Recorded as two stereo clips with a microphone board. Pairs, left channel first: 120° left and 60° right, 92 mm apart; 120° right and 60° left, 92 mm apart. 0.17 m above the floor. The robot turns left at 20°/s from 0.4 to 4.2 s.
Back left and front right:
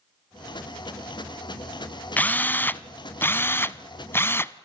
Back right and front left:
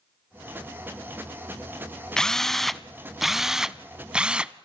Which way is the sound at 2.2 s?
165° left.